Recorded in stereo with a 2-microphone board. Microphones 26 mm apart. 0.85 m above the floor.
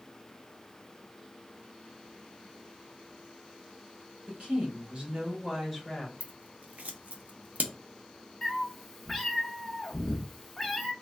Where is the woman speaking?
55° right (ahead or behind), 1.4 m; by 6.1 s 15° left (ahead or behind), 0.9 m.